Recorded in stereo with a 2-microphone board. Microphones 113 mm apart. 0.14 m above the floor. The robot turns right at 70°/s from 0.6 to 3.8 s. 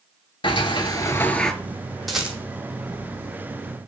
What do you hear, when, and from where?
0.4 s a sliding door: 115° left, 0.5 m; by 1.5 s straight behind, 0.5 m
2.1 s a rattle: centre (ahead or behind), 0.9 m; by 2.4 s 20° right (ahead or behind), 0.9 m